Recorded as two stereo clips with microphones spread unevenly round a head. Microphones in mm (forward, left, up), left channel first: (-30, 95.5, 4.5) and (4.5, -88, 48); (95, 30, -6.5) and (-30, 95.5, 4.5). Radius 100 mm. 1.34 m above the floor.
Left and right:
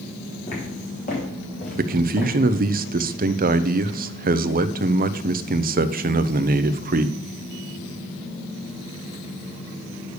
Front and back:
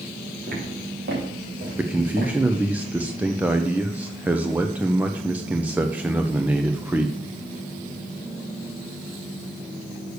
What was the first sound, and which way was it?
Footsteps, 155° left.